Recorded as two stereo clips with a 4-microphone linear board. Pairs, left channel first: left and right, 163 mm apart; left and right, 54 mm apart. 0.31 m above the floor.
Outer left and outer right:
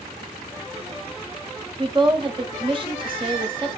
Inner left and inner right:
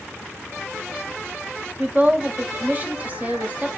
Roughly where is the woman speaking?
Right.